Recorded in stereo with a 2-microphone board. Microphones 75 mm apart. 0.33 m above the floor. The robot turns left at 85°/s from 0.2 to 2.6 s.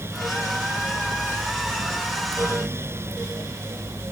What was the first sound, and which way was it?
Only background noise.